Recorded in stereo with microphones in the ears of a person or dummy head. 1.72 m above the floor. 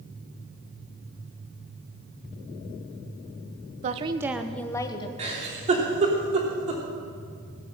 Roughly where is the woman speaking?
Right.